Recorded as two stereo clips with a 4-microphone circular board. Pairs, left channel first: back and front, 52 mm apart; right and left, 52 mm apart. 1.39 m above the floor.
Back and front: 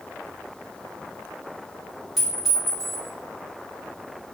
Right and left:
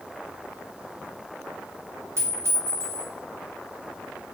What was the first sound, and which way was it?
A clink, 85° left.